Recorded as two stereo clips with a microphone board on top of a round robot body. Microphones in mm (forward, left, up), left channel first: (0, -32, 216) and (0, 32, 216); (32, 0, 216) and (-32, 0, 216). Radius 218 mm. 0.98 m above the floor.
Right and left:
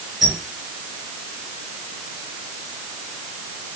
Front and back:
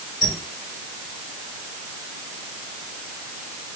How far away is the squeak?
About 1.7 m.